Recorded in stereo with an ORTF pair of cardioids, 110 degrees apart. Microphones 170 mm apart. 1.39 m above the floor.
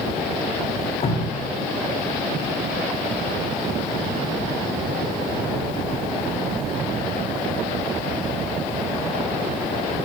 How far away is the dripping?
About 1.7 m.